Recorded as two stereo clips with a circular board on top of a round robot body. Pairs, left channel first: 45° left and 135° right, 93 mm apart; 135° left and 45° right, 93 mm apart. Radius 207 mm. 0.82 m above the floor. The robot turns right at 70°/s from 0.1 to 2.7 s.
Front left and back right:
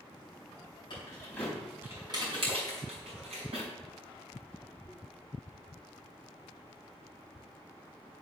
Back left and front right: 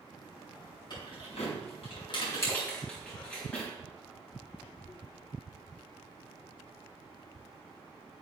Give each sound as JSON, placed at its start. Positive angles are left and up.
{"t": 0.9, "sound": "keys jangling", "azimuth_deg": 90, "distance_m": 4.5}